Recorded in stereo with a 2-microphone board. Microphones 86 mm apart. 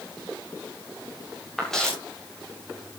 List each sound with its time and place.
1.6 s footsteps: 5° left (ahead or behind), 7.5 m